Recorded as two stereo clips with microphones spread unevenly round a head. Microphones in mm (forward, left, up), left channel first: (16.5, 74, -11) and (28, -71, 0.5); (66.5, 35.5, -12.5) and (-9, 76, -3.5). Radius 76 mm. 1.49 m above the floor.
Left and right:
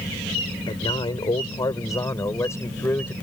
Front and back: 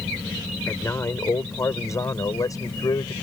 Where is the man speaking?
35° left; by 3.1 s 20° left.